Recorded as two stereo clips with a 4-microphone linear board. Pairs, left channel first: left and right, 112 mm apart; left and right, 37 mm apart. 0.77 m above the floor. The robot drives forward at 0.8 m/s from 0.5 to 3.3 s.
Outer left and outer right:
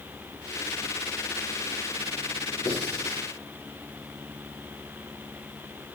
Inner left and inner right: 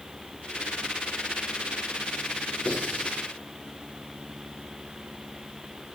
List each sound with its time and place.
2.6 s writing: 35° left (ahead or behind), 8 m; by 3.2 s 30° left (ahead or behind), 8.5 m